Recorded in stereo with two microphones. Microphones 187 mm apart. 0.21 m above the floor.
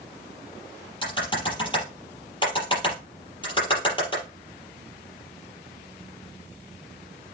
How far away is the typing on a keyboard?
About 5 m.